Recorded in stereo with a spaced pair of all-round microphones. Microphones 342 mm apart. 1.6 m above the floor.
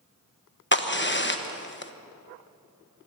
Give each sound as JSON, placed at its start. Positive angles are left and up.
{"t": 0.7, "sound": "a crack", "side_deg": 35, "distance_m": 1.1}